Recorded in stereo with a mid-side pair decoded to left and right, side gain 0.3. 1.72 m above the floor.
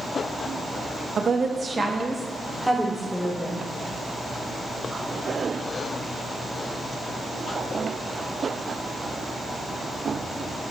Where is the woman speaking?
70° right, 1.3 m; by 3.6 s 10° left, 2.5 m.